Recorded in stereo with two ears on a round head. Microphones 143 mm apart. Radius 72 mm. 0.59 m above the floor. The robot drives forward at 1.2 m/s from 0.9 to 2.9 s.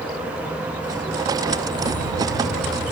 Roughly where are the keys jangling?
Left.